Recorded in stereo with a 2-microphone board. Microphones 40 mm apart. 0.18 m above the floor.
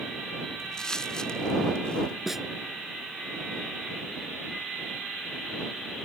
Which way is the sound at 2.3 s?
5° right (ahead or behind).